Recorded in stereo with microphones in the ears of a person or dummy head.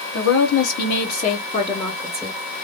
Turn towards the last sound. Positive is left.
turn(degrees=0)  # may be behind; listen again after turning